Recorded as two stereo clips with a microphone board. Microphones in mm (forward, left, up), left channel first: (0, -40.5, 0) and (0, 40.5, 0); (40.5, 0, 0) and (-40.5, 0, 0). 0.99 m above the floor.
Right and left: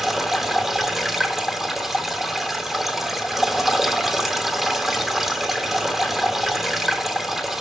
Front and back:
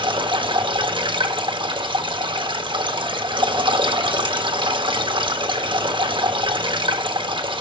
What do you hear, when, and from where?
0.0 s running water: 175° left, 1.0 m